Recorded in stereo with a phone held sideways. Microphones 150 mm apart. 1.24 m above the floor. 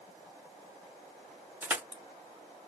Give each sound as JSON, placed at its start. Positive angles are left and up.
{"t": 1.6, "sound": "crushing", "side_deg": -10, "distance_m": 0.5}